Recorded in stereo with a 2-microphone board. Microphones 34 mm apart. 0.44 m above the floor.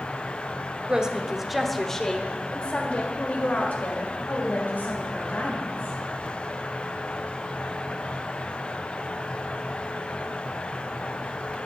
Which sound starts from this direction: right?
A woman speaking, at 0.9 s.